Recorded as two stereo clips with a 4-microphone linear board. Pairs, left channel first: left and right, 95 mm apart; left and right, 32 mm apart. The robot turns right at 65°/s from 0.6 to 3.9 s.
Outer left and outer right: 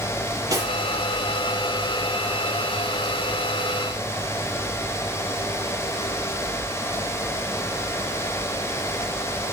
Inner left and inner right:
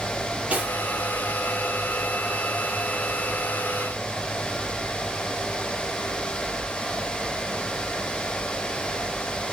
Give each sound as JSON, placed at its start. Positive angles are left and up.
{"t": 0.5, "sound": "cutlery clinking", "side_deg": -35, "distance_m": 6.5}